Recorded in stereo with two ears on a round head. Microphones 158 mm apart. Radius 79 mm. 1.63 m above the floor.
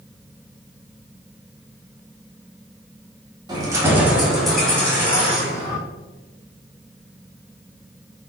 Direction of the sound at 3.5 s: 20° right (ahead or behind).